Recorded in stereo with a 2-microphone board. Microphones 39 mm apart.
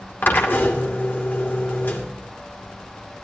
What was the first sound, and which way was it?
A drill, 55° left (ahead or behind).